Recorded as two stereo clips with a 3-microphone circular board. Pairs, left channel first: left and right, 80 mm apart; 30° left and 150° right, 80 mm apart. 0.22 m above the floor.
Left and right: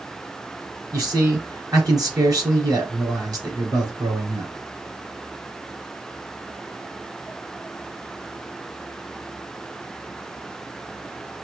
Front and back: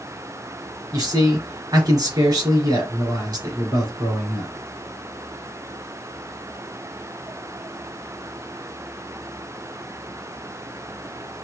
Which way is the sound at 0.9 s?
130° right.